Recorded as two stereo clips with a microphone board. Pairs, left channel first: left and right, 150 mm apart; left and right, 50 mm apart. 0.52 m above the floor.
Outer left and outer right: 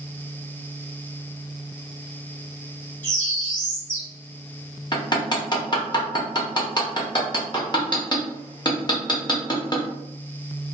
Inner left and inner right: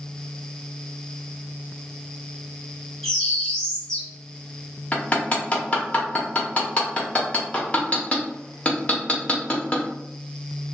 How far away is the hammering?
About 0.7 m.